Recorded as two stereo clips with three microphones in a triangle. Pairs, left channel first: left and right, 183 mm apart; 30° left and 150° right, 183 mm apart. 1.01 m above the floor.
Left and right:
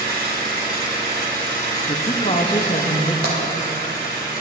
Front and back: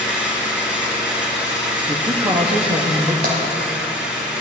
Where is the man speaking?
150° left, 1.0 m.